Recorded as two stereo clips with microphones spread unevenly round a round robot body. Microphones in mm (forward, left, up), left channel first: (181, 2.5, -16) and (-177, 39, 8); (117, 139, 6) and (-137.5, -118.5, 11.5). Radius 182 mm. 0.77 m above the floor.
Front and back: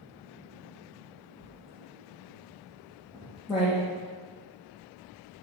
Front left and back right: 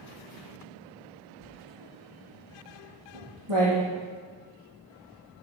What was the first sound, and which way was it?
Writing, 95° right.